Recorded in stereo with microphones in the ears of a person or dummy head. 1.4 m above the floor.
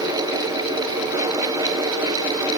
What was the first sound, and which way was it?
Only background noise.